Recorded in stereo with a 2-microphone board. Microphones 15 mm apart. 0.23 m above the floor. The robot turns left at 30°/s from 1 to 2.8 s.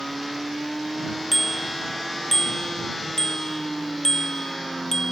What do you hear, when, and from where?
1.3 s a bicycle bell: centre (ahead or behind); by 5.1 s 40° left (ahead or behind)